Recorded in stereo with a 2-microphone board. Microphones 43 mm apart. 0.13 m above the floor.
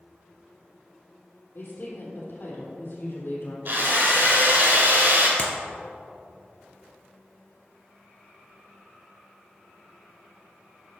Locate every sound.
1.6 s a woman speaking: 60° left (ahead or behind), 3.5 m
3.6 s a drill: 55° right (ahead or behind), 4 m
5.4 s a clap: 45° left (ahead or behind), 1.7 m